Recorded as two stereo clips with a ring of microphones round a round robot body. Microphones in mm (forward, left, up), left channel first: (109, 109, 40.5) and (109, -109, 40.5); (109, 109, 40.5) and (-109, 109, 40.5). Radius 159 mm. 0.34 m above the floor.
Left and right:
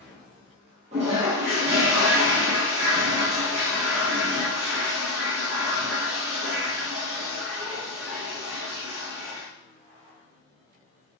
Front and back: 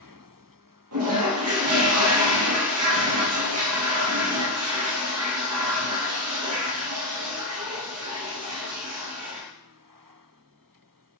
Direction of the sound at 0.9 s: 160° right.